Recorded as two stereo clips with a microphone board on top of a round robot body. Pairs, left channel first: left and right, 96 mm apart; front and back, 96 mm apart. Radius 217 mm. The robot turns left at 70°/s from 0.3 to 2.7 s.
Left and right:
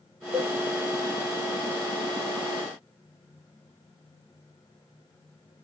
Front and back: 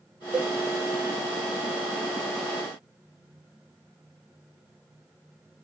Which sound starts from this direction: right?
A cowbell, at 0.3 s.